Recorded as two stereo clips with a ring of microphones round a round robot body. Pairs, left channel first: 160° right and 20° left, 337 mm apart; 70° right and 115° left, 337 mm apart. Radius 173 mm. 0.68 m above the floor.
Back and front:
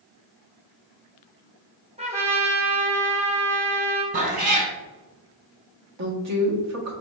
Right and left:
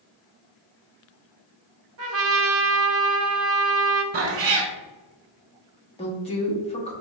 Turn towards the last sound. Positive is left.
turn(degrees=0)